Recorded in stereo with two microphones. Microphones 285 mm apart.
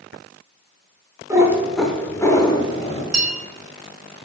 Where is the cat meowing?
10° right (ahead or behind), 0.7 m; by 3.0 s 20° left (ahead or behind), 1.0 m.